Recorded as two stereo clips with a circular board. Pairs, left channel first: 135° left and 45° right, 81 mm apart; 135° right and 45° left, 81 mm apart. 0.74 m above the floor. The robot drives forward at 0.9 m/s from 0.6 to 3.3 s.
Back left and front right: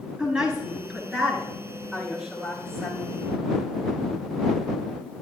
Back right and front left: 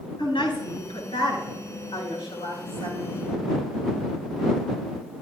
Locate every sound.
0.2 s a woman speaking: 125° right, 8 m; by 3.2 s 135° right, 9.5 m